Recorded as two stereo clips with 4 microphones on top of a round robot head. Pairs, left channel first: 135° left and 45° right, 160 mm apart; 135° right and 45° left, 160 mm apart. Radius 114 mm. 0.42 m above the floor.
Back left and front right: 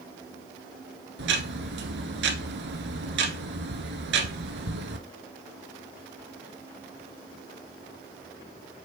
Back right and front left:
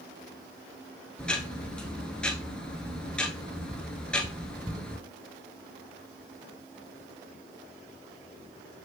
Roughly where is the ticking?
Ahead right.